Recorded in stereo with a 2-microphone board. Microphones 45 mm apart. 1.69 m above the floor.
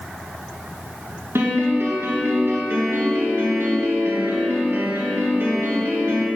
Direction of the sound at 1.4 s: 65° right (ahead or behind).